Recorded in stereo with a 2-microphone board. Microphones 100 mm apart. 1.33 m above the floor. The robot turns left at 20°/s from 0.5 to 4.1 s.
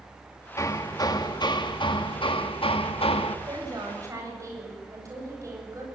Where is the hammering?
145° left, 1.4 m; by 3.4 s 90° left, 1.4 m.